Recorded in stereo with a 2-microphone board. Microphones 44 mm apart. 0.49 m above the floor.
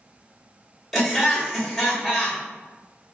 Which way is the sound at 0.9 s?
5° right (ahead or behind).